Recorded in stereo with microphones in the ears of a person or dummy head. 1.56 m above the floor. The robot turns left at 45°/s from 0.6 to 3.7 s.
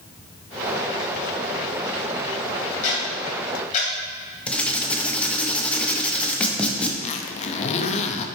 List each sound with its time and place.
2.8 s ticking: 60° left (ahead or behind), 2.5 m; by 3.9 s 40° left (ahead or behind), 2.5 m
4.5 s writing: 10° left (ahead or behind), 0.8 m
7.0 s a zipper: 35° left (ahead or behind), 0.5 m